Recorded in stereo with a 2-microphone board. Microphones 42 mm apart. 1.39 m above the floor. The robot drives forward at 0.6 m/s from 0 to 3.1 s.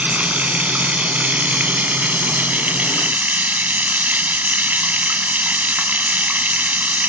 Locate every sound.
0.0 s running water: 35° right (ahead or behind); by 7.1 s 40° right (ahead or behind)